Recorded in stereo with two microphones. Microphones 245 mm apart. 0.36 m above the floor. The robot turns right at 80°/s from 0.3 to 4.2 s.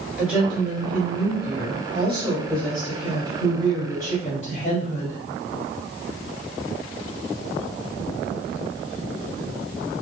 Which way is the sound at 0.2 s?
175° right.